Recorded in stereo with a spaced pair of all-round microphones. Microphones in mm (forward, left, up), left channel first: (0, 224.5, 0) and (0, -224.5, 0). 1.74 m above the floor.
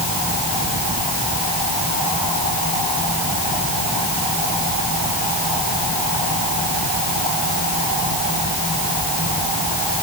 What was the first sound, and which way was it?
Only background noise.